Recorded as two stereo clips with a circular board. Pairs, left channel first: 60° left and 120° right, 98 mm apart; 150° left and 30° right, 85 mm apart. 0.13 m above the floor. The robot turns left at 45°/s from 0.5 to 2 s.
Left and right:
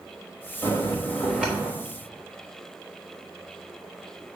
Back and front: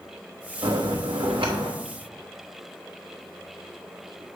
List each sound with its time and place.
0.6 s a bell: straight ahead, 3 m; by 1.7 s 50° right, 3 m